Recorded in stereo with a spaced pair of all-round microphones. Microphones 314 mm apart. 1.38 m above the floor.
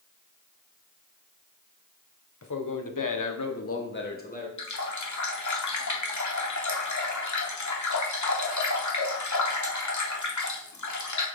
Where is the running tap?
65° left (ahead or behind), 0.8 m.